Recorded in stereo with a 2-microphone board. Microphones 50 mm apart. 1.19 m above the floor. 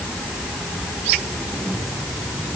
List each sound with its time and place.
Only background noise.